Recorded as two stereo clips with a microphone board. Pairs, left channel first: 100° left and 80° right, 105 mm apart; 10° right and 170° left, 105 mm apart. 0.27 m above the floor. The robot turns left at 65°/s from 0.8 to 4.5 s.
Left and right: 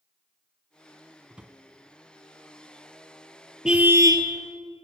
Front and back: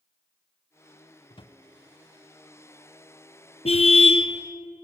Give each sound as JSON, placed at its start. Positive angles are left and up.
{"t": 1.3, "sound": "a drawer", "azimuth_deg": 5, "distance_m": 1.4}
{"t": 3.6, "sound": "a car horn", "azimuth_deg": 5, "distance_m": 2.0}